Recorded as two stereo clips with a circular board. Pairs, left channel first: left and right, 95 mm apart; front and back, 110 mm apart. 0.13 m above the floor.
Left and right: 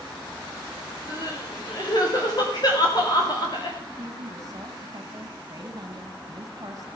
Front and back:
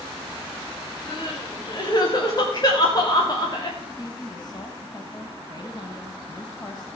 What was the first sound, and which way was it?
Crying, 50° left.